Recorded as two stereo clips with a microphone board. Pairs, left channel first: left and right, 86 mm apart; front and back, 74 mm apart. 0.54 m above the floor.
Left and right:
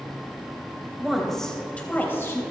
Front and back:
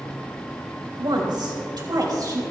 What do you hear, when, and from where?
1.0 s a woman speaking: 175° right, 3 m; by 2.4 s 145° left, 3 m